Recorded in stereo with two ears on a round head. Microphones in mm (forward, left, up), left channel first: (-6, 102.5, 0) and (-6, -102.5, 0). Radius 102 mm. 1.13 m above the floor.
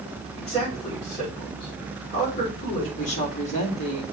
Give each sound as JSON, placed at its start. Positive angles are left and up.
{"t": 0.3, "sound": "a man speaking", "side_deg": 20, "distance_m": 5.0}
{"t": 3.0, "sound": "a woman speaking", "side_deg": 30, "distance_m": 2.5}